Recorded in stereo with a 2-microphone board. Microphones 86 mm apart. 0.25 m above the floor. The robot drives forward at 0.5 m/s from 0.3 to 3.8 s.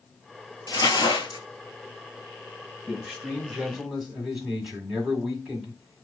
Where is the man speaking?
10° right (ahead or behind), 1.2 m; by 6.0 s 5° right (ahead or behind), 1.5 m.